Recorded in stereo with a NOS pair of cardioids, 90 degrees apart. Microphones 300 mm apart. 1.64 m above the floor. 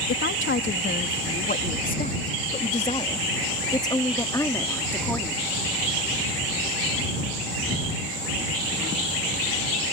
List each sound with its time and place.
0.1 s a woman speaking: 40° left; by 5.4 s 5° left